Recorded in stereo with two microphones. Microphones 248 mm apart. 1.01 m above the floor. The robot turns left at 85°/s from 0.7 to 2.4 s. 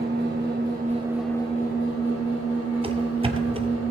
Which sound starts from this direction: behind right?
An engine running, at 0.0 s.